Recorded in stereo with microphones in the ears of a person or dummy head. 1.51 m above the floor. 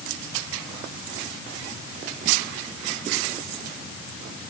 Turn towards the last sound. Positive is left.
No sound to turn to.